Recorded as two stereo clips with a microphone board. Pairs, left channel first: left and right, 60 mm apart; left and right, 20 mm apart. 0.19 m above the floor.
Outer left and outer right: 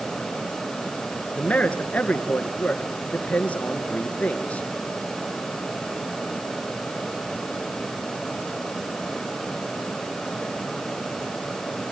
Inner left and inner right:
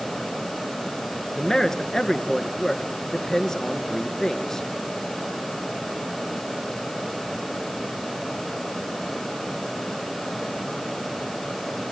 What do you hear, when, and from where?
1.4 s a man speaking: 25° left (ahead or behind), 2.5 m